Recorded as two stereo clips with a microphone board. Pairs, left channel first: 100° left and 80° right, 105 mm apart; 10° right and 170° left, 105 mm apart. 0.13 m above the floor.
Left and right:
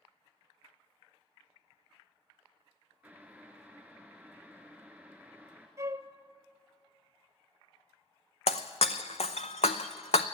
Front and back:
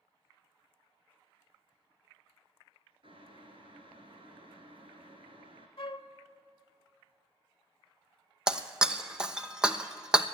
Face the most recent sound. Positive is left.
turn(degrees=90)